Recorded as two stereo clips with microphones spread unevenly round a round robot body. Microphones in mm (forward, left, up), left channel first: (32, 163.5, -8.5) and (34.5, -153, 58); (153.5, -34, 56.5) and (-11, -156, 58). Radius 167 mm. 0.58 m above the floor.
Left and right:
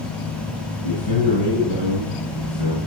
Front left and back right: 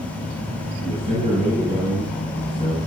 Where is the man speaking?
100° left, 8 m.